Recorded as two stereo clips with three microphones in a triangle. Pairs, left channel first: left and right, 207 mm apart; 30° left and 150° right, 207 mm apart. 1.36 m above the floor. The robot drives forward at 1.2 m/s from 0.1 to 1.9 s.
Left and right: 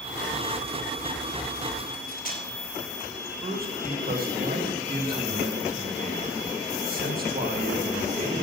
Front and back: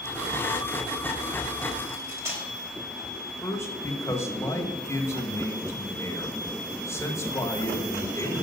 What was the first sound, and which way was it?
Cutlery clinking, 135° left.